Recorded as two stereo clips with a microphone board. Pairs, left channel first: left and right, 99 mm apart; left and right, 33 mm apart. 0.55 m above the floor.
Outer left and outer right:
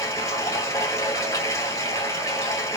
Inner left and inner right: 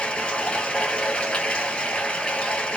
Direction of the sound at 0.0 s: 35° left (ahead or behind).